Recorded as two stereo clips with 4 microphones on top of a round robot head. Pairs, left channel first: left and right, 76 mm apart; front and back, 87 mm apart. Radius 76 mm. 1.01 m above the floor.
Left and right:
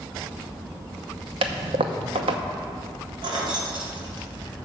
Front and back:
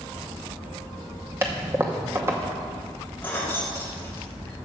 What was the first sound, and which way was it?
A toilet flushing, 110° right.